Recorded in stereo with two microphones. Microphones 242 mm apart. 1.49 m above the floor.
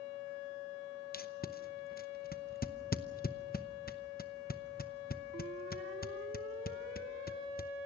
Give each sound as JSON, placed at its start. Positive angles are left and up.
{"t": 1.1, "sound": "tape being pulled", "side_deg": 40, "distance_m": 0.8}